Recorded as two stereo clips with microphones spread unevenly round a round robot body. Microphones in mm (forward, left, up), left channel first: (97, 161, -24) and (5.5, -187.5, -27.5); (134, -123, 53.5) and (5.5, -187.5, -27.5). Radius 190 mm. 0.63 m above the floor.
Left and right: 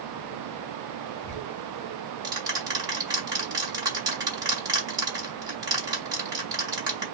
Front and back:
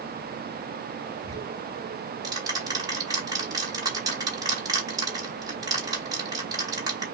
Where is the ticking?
175° left, 0.9 m.